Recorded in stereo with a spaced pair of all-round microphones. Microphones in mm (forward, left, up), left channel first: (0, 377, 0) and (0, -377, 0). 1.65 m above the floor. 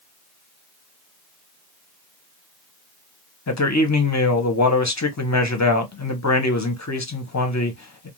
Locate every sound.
3.5 s a man speaking: 25° left (ahead or behind), 0.7 m